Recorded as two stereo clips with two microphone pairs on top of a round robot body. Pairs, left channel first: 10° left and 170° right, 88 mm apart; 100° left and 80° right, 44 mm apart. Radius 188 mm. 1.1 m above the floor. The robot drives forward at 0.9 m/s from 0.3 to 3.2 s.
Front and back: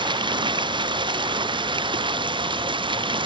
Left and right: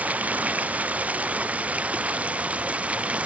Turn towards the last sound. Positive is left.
turn(degrees=-140)